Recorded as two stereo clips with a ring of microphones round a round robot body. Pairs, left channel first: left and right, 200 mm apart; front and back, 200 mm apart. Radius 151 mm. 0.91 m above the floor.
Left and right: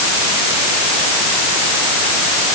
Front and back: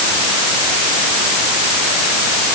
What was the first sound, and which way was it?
Only background noise.